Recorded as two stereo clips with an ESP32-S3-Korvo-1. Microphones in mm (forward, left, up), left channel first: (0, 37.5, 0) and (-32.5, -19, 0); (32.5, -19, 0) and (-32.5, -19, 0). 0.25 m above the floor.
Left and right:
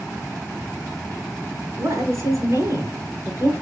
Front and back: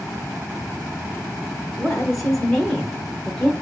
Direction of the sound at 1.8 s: 85° right.